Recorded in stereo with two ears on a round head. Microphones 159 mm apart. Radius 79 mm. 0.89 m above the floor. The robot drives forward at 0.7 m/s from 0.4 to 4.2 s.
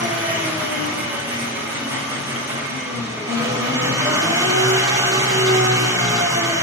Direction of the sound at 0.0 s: 10° right (ahead or behind).